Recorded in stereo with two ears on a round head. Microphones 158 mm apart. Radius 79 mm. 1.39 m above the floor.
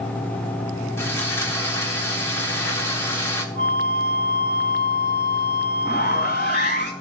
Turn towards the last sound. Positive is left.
turn(degrees=50)  # may be behind; listen again after turning